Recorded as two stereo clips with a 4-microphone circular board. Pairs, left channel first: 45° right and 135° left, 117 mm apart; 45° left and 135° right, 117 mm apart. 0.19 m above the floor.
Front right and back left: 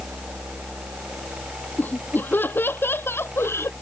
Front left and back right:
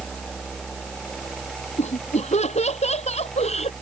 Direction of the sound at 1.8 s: 30° left.